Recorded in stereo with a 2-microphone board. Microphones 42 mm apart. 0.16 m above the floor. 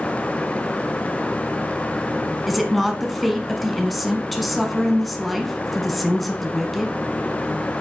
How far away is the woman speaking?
About 1.2 m.